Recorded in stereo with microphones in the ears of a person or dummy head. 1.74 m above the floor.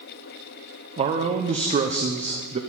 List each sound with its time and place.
1.0 s a man speaking: 35° right (ahead or behind), 0.8 m